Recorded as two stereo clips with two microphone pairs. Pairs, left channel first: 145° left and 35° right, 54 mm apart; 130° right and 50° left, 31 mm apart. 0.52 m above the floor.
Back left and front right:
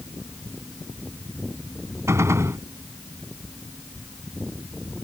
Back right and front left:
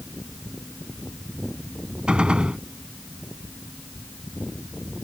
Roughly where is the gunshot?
Ahead.